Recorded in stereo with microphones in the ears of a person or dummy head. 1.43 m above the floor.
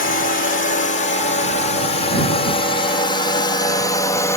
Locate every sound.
0.0 s a drone: 40° left (ahead or behind); by 4.4 s 15° left (ahead or behind)